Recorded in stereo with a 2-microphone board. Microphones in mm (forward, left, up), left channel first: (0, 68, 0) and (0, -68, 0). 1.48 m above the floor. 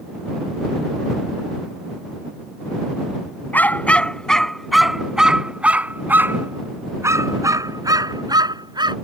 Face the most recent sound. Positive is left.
turn(degrees=-35)  # may be behind; listen again after turning